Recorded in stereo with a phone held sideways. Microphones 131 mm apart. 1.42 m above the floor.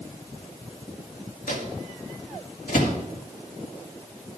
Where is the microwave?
80° left, 1.8 m.